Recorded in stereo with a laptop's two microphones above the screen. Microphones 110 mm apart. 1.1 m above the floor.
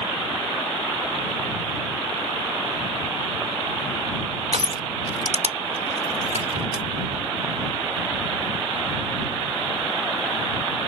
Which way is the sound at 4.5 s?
80° right.